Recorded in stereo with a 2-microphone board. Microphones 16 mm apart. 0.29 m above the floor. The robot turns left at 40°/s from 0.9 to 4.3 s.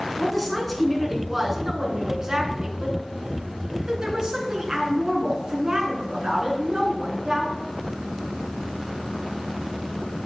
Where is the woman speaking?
5° left, 3 m; by 7.6 s 135° right, 3 m.